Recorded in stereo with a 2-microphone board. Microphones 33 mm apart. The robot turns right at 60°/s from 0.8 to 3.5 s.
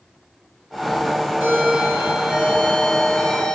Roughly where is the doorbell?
Right.